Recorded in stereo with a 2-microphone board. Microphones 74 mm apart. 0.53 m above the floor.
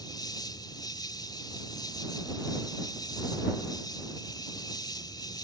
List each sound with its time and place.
0.0 s an insect: 70° left (ahead or behind)